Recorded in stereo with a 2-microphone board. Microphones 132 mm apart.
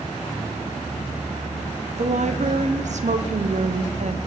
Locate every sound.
2.0 s a woman speaking: 65° right (ahead or behind), 0.7 m